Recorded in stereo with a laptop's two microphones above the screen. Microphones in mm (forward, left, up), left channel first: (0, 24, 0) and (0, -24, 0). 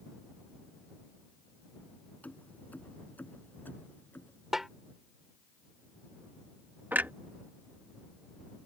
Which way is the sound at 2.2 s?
35° left (ahead or behind).